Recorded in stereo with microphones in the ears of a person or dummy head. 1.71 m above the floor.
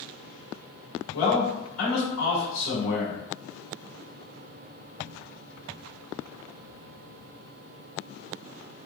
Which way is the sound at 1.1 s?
75° left (ahead or behind).